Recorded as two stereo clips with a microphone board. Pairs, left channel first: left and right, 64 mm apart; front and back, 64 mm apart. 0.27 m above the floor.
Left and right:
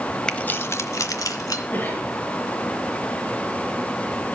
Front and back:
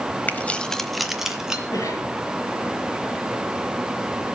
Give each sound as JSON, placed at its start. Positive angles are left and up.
{"t": 0.3, "sound": "keys jangling", "azimuth_deg": 20, "distance_m": 1.0}
{"t": 1.7, "sound": "a cough", "azimuth_deg": 25, "distance_m": 6.0}